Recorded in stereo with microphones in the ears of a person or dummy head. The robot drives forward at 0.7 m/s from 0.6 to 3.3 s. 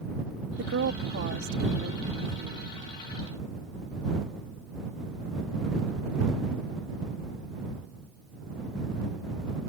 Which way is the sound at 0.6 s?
60° right (ahead or behind).